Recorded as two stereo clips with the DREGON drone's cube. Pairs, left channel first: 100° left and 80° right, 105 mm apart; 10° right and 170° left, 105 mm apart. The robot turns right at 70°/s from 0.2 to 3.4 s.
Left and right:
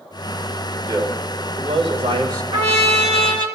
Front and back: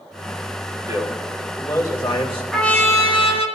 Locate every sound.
0.9 s a man speaking: 140° right, 3.5 m; by 2.4 s 35° right, 3.5 m
2.5 s a trumpet: 95° right, 1.5 m; by 3.5 s 35° right, 1.5 m